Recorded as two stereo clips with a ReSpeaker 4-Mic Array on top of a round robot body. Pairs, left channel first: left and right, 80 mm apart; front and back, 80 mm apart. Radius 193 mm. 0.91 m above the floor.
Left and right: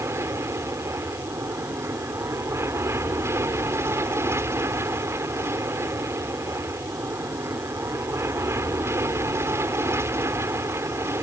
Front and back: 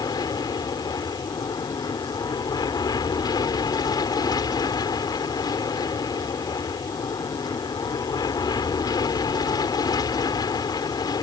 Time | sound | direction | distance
0.0 | an aircraft | 35° right | ?